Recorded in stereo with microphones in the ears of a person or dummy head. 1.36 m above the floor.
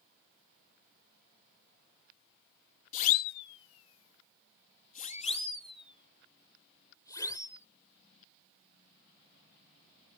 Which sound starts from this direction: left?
A siren, at 2.9 s.